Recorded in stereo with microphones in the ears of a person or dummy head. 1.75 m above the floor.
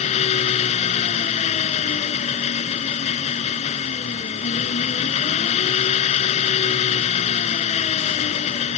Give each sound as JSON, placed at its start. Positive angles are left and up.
{"t": 0.0, "sound": "an engine running", "side_deg": 35}